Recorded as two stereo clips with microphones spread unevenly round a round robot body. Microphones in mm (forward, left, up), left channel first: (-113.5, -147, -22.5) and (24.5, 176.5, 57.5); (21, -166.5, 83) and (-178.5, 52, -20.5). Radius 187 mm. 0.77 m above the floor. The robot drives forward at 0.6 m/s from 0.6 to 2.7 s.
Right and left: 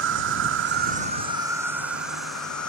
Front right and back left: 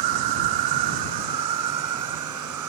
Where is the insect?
125° left; by 2.7 s 160° left.